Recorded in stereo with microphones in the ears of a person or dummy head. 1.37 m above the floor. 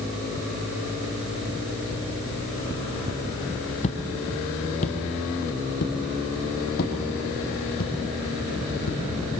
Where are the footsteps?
30° left (ahead or behind), 2.5 m; by 9.0 s 60° left (ahead or behind), 5 m.